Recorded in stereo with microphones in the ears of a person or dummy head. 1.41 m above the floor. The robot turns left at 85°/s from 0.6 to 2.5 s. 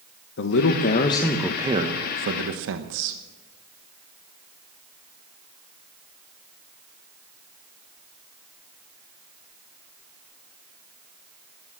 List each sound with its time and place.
0.4 s a man speaking: 75° left, 0.9 m; by 3.2 s 90° right, 0.9 m